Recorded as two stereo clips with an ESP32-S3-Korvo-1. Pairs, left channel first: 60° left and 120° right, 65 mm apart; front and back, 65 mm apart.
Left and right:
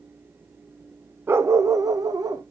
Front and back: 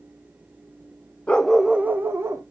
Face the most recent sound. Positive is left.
turn(degrees=-140)